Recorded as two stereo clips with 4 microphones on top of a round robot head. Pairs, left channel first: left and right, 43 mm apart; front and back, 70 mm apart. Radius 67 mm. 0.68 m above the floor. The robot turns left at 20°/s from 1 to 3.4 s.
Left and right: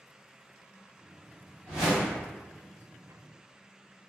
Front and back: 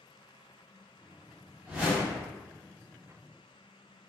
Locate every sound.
1.7 s a whoosh: 110° left, 0.8 m; by 2.3 s 100° left, 0.8 m